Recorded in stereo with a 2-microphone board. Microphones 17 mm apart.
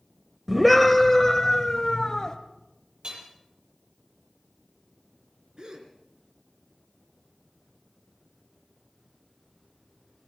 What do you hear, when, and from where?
0.5 s a scream: 5° right (ahead or behind), 0.9 m; by 2.4 s 40° left (ahead or behind), 1.4 m
3.0 s hammering: 60° right (ahead or behind), 5.5 m
5.6 s a gasp: 50° right (ahead or behind), 3 m